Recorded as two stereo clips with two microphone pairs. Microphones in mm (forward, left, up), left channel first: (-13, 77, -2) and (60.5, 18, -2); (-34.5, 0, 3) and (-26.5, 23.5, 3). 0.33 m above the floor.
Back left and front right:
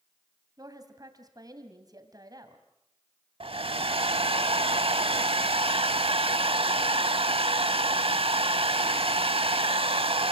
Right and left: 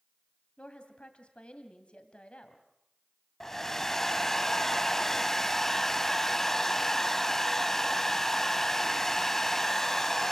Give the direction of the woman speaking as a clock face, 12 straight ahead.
3 o'clock.